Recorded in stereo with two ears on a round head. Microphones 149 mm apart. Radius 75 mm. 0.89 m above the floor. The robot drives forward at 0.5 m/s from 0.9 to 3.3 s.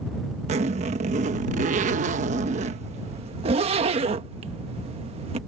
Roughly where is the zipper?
Right.